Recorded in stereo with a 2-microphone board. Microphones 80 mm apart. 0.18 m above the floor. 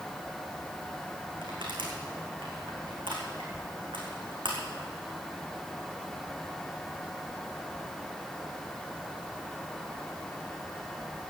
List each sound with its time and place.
1.4 s crushing: 80° right, 3.5 m